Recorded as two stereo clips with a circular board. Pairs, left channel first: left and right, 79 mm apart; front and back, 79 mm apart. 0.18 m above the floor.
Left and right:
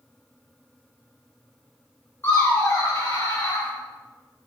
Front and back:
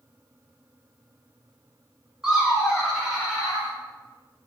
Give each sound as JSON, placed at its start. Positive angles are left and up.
{"t": 2.2, "sound": "laughter", "azimuth_deg": 105, "distance_m": 1.3}